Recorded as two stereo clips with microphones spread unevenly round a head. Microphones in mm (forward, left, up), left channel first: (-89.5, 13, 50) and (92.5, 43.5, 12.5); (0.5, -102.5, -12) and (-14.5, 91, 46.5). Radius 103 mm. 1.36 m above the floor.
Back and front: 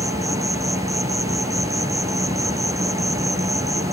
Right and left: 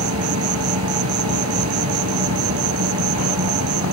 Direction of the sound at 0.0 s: 85° left.